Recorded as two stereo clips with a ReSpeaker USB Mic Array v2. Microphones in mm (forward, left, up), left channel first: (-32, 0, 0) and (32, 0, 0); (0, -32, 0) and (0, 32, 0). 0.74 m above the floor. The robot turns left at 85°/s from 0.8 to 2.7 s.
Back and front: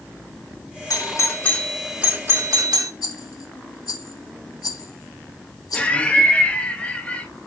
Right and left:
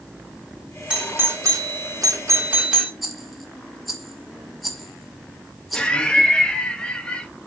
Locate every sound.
0.9 s a doorbell: 165° left, 2 m; by 2.9 s 15° left, 2 m
3.0 s a rattle: straight behind, 1.8 m
5.7 s laughter: 140° right, 1.0 m